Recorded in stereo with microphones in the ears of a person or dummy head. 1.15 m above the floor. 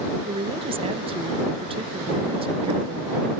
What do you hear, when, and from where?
0.2 s a woman speaking: 25° right (ahead or behind)